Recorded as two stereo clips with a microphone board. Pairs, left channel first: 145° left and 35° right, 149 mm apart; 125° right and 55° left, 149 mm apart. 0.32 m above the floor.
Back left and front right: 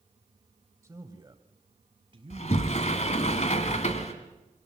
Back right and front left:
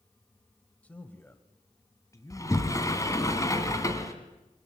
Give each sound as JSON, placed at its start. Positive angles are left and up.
{"t": 0.8, "sound": "a man speaking", "azimuth_deg": -60, "distance_m": 1.0}
{"t": 2.3, "sound": "a sliding door", "azimuth_deg": 170, "distance_m": 1.8}